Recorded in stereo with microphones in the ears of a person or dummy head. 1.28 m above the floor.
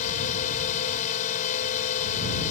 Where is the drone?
45° left (ahead or behind).